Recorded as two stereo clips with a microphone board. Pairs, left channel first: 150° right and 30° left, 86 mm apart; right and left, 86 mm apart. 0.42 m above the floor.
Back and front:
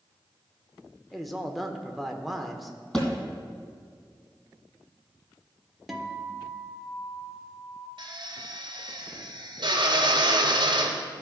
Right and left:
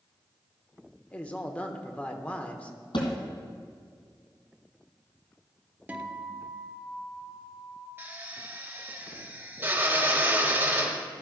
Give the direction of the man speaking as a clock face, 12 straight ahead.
2 o'clock.